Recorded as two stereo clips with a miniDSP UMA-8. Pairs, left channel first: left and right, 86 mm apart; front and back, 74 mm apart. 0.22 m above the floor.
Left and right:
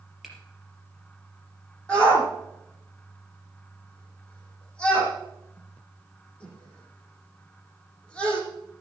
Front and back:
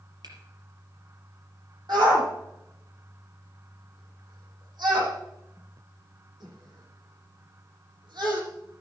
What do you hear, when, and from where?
0.2 s a finger snap: 175° right, 4.5 m
1.9 s a shout: 165° left, 9.5 m